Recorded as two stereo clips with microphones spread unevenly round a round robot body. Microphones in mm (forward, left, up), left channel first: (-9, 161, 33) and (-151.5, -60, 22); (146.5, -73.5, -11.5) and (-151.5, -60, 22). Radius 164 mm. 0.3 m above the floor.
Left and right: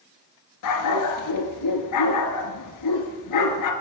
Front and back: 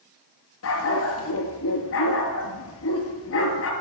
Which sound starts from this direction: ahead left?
A dog barking, at 0.6 s.